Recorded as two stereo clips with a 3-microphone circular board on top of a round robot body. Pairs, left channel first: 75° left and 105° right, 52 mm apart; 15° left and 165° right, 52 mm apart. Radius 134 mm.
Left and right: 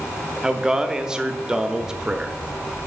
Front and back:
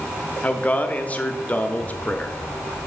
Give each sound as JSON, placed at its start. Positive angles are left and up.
{"t": 0.4, "sound": "a man speaking", "azimuth_deg": -35, "distance_m": 0.9}